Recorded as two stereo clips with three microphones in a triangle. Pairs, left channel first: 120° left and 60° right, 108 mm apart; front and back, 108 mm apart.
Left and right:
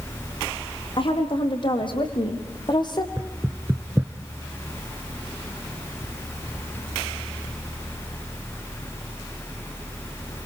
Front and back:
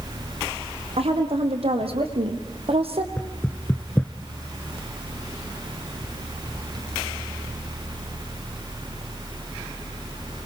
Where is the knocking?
50° right, 0.9 m.